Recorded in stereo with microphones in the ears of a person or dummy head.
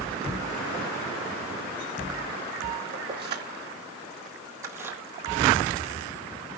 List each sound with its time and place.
2.9 s keys jangling: 35° right (ahead or behind), 2.5 m; by 5.0 s 10° right (ahead or behind), 1.7 m